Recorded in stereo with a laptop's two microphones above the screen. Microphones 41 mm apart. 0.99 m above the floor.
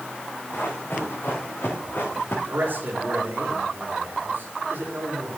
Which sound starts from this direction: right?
A man speaking, at 2.5 s.